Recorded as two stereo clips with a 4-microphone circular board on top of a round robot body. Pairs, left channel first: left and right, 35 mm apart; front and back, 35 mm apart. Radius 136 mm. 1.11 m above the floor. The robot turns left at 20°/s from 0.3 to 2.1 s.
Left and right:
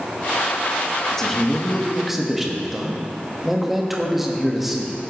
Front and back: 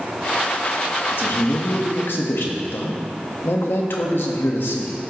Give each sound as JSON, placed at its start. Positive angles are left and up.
{"t": 1.1, "sound": "a man speaking", "azimuth_deg": 15, "distance_m": 1.6}